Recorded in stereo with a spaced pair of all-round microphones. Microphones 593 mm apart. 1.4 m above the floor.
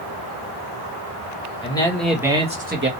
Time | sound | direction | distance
1.6 | a man speaking | 10° left (ahead or behind) | 1.5 m